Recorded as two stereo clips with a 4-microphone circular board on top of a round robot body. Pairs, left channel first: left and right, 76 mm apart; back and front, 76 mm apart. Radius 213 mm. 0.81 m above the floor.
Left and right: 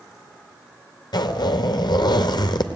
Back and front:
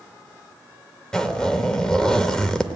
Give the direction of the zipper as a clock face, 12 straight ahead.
9 o'clock.